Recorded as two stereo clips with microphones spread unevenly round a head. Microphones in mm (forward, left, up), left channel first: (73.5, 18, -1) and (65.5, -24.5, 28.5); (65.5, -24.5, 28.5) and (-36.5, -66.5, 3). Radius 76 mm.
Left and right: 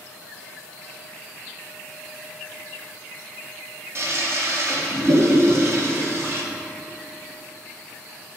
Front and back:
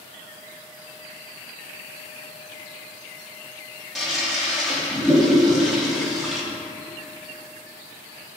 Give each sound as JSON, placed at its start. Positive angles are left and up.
{"t": 4.0, "sound": "a toilet flushing", "azimuth_deg": -70, "distance_m": 2.0}